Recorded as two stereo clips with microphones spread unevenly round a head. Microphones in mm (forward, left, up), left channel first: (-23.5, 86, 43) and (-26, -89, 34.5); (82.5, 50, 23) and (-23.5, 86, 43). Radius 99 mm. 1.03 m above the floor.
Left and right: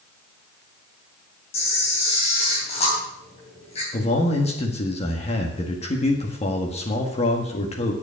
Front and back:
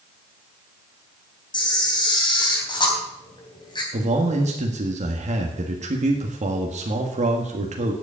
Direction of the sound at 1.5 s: 30° left.